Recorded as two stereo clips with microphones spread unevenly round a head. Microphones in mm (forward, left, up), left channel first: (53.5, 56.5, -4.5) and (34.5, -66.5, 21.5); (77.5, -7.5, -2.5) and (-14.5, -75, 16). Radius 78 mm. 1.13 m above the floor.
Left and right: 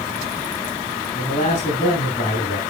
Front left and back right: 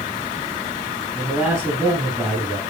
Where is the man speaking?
130° left, 7 m.